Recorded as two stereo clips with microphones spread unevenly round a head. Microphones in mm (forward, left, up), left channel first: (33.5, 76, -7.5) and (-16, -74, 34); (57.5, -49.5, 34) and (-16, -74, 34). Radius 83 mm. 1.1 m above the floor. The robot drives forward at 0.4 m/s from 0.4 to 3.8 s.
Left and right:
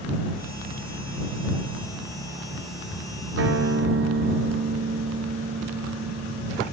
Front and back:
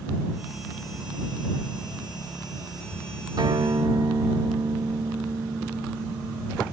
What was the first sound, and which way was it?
A guitar, 130° right.